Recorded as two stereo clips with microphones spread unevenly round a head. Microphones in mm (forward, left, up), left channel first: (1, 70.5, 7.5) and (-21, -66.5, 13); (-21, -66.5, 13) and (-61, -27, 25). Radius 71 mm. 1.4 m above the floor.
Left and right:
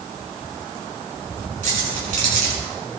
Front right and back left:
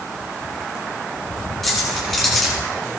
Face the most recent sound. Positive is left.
turn(degrees=-130)